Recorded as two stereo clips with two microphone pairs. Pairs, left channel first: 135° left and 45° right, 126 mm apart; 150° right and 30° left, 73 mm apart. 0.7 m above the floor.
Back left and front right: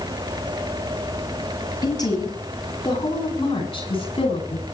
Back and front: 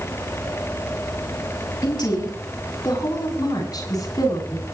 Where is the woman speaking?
165° right, 7.5 m; by 4.6 s straight behind, 8.5 m.